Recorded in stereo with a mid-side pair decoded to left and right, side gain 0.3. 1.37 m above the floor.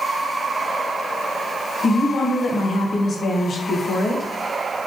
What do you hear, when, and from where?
1.8 s a woman speaking: 65° left, 1.5 m